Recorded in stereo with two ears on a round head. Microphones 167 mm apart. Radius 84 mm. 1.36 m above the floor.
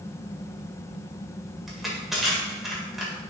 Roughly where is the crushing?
Centre.